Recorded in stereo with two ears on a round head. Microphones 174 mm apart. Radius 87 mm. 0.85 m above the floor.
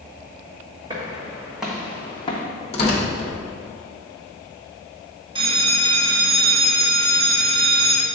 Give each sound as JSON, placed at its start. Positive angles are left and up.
{"t": 0.9, "sound": "footsteps", "side_deg": -25, "distance_m": 2.5}
{"t": 2.7, "sound": "tearing paper", "side_deg": 35, "distance_m": 1.6}
{"t": 5.3, "sound": "a bell", "side_deg": -25, "distance_m": 1.0}